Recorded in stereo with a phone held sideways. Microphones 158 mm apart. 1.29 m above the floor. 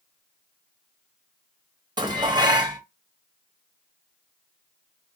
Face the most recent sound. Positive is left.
turn(degrees=-25)  # may be behind; listen again after turning